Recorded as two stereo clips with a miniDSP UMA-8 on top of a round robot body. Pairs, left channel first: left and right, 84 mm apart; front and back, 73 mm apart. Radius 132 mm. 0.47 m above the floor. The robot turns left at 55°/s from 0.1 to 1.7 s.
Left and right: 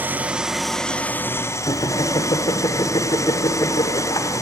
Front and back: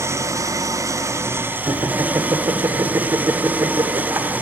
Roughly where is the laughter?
Behind left.